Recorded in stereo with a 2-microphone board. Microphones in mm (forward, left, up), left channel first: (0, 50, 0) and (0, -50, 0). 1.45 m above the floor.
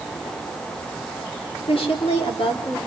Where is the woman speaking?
70° left (ahead or behind), 4 m.